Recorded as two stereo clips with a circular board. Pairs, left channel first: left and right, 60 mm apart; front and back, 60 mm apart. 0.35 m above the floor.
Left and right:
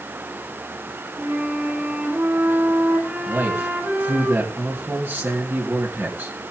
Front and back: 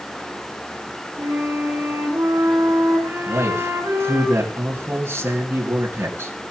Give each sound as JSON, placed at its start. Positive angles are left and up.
{"t": 1.2, "sound": "a flute", "azimuth_deg": -145, "distance_m": 6.5}
{"t": 3.3, "sound": "a man speaking", "azimuth_deg": -135, "distance_m": 5.0}